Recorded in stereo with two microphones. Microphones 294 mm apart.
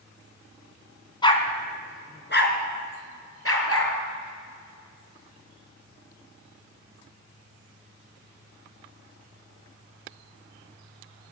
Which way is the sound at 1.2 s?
15° left (ahead or behind).